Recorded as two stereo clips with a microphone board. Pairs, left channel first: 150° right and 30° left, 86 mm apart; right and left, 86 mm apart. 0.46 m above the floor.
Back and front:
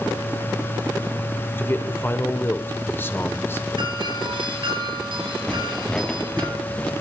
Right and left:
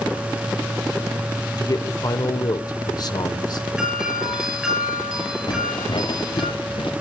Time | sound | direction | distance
1.6 | a man speaking | 95° right | 1.5 m
3.8 | a doorbell | 10° left | 9.5 m
5.5 | footsteps | 70° right | 2.0 m